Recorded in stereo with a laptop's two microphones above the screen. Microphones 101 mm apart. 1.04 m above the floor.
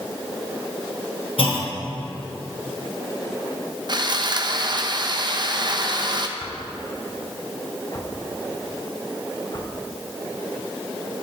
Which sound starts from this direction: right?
Sawing, at 3.9 s.